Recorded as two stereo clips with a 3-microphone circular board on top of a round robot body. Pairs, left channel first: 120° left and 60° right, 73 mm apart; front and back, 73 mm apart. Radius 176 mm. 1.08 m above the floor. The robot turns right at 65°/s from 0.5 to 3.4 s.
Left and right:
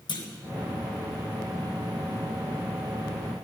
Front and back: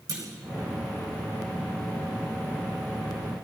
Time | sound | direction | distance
0.1 | a clunk | 135° left | 5 m